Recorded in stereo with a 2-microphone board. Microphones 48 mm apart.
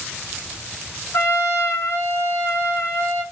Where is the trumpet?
70° left (ahead or behind), 4.5 m.